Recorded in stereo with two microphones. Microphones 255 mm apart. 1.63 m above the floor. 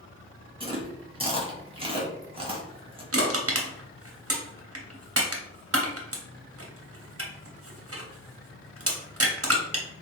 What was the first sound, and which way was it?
Chewing, 20° right (ahead or behind).